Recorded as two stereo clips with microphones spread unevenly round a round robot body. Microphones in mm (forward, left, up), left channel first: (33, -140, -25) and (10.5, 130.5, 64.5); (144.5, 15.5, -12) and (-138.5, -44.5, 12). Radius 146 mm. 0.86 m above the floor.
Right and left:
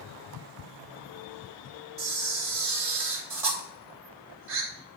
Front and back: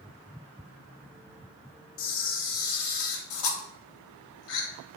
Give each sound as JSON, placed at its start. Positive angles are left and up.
{"t": 2.0, "sound": "a camera shutter", "azimuth_deg": 45, "distance_m": 1.6}